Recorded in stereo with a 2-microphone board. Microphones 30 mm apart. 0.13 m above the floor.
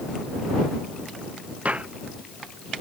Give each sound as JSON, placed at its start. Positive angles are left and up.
{"t": 1.6, "sound": "footsteps", "side_deg": -50}